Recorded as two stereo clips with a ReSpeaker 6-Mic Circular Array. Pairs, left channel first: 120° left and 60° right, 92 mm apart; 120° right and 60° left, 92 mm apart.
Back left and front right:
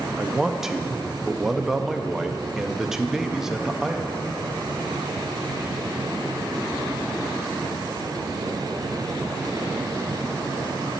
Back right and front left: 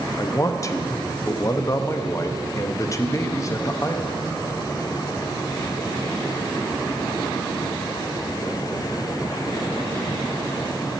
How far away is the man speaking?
About 0.6 m.